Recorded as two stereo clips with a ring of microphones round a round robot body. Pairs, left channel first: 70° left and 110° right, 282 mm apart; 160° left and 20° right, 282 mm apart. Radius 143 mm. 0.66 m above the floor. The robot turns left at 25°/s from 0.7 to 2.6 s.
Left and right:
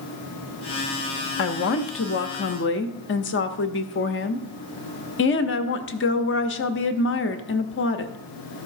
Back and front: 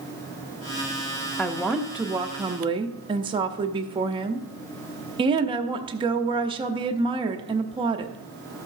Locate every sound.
1.4 s a woman speaking: 75° left, 0.8 m; by 8.2 s 45° left, 0.8 m